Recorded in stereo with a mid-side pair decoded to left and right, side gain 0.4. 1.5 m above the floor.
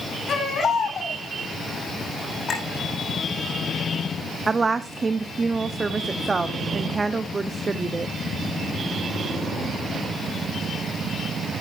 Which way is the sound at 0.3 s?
55° left.